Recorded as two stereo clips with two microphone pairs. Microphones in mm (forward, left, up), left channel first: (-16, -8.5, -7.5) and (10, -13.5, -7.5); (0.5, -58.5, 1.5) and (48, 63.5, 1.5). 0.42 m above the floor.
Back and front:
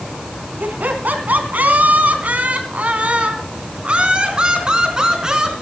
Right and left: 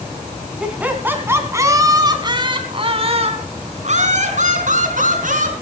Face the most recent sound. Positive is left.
turn(degrees=60)